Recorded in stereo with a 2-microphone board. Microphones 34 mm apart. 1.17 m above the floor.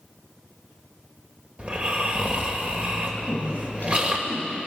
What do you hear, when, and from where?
1.6 s snoring: 35° right (ahead or behind), 2.5 m
3.2 s a woman speaking: 65° left (ahead or behind), 7.5 m